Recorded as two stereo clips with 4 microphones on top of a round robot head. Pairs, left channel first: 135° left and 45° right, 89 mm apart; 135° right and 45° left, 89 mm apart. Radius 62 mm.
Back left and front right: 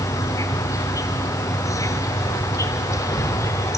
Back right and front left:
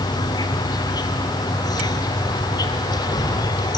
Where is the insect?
175° right, 1.4 m.